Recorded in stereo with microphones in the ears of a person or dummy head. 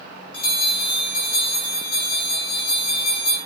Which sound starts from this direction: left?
A bell, at 0.3 s.